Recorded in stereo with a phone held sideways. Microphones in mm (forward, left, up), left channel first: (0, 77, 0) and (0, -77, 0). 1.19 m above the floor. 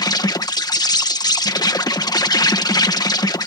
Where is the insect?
25° left (ahead or behind).